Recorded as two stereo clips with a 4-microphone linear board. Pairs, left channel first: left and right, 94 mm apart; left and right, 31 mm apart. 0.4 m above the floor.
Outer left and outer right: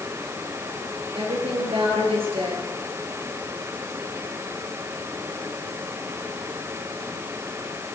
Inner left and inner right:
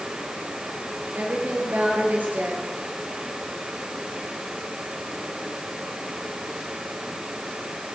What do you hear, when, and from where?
1.1 s a woman speaking: 80° right, 6.5 m